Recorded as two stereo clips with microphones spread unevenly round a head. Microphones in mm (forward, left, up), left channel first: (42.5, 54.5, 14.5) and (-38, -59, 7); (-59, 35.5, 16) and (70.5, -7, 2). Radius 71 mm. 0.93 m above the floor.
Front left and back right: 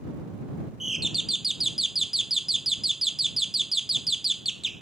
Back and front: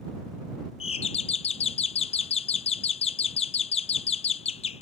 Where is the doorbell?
150° left.